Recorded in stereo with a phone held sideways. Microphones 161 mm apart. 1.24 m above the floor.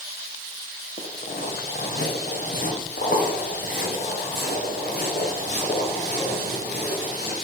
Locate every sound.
1.0 s footsteps: 65° left (ahead or behind), 3 m; by 7.3 s 80° left, 8 m